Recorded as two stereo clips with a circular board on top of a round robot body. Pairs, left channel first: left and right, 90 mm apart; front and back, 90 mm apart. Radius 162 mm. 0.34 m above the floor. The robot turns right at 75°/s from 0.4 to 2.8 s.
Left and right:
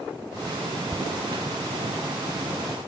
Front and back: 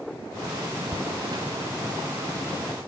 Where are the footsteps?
Straight behind, 2.5 m; by 2.5 s 45° right, 3.5 m.